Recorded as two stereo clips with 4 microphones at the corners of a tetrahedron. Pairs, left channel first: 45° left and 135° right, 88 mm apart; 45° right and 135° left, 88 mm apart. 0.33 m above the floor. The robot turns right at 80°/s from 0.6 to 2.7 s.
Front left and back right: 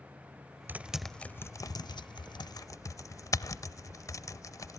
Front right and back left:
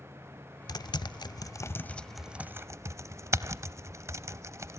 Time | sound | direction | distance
0.7 | typing on a keyboard | 70° right | 0.7 m